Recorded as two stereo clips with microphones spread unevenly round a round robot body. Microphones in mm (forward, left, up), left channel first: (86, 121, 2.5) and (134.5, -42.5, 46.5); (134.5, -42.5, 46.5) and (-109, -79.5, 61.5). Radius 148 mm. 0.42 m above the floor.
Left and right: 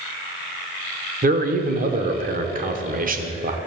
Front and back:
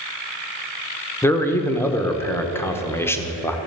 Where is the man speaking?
60° right, 1.3 m.